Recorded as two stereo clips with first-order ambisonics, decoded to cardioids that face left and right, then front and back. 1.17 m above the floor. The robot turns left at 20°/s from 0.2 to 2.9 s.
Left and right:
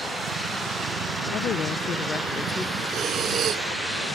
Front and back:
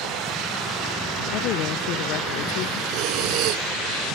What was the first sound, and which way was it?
A woman speaking, 35° left.